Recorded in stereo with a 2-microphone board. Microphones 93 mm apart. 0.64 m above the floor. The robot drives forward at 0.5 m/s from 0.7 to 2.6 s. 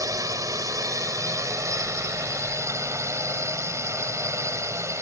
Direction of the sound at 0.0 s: 40° right (ahead or behind).